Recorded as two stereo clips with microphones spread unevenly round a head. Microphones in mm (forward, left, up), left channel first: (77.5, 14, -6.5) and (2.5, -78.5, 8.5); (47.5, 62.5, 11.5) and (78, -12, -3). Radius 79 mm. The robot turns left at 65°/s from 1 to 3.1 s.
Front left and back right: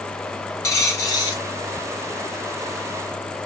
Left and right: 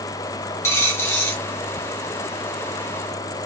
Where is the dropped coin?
115° left, 0.8 m; by 1.4 s 85° left, 0.8 m.